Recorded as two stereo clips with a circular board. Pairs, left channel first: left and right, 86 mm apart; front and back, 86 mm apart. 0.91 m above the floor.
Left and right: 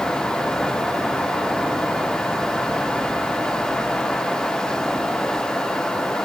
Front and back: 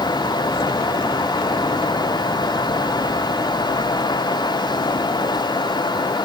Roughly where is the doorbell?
I don't hear a doorbell.